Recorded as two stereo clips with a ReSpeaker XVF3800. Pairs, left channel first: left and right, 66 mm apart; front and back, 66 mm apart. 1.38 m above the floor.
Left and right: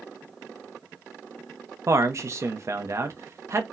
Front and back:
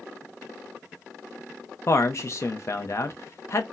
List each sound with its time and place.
1.9 s a man speaking: 45° right, 0.7 m